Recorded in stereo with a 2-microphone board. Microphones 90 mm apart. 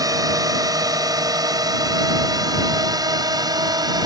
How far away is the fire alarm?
I don't hear a fire alarm.